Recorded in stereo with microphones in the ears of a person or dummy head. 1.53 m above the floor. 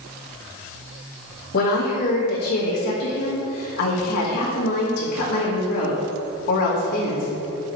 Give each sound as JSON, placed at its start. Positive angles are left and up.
{"t": 1.5, "sound": "a woman speaking", "side_deg": 55, "distance_m": 1.8}